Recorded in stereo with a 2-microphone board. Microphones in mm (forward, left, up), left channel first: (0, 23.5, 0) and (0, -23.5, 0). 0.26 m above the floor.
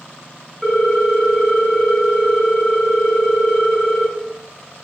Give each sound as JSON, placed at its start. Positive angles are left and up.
{"t": 0.6, "sound": "a ringtone", "side_deg": -5, "distance_m": 1.1}